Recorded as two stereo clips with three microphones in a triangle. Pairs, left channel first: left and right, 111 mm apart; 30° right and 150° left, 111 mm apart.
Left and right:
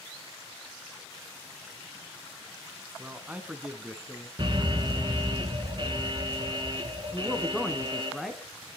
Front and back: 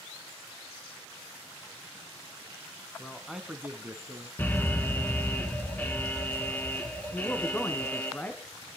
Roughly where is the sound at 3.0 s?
Right.